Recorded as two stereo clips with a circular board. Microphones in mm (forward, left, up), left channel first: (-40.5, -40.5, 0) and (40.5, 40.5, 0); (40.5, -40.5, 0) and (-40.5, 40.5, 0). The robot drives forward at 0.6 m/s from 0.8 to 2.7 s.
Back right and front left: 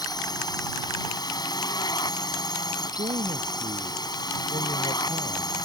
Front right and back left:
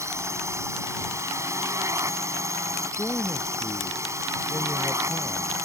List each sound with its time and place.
0.0 s a drone: 170° right
2.9 s a man speaking: 35° left